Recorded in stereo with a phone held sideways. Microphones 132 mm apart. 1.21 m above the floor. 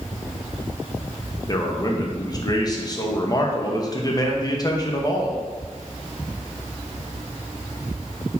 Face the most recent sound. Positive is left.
turn(degrees=30)  # may be behind; listen again after turning